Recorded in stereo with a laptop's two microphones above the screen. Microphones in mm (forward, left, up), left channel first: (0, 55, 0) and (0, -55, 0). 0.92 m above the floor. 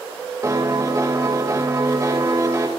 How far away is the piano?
About 2.5 m.